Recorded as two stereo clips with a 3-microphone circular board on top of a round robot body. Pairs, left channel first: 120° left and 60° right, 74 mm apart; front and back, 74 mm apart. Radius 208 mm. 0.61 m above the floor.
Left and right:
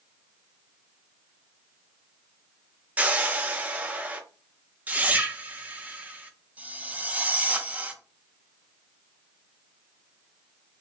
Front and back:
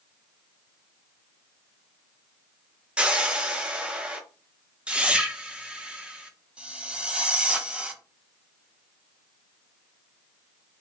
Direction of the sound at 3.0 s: 115° right.